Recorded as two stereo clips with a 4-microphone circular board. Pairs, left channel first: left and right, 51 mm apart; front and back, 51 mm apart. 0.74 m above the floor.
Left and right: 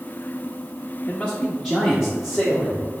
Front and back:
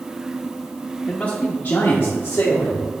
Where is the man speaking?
50° left, 0.8 m; by 2.9 s 10° right, 1.7 m.